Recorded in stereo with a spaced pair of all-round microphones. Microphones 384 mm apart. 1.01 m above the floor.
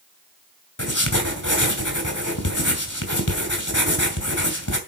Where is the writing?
50° left (ahead or behind), 2.5 m.